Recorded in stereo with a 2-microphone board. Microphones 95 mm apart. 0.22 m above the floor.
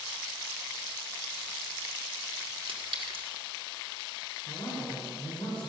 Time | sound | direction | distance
2.7 | a clink | 70° right (ahead or behind) | 1.9 m
4.5 | a man speaking | 60° left (ahead or behind) | 3 m